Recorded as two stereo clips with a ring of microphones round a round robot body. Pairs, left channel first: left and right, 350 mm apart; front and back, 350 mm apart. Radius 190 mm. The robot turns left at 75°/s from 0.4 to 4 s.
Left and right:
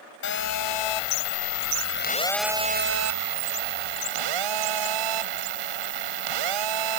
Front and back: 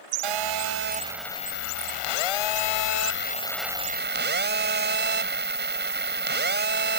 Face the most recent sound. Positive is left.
turn(degrees=-120)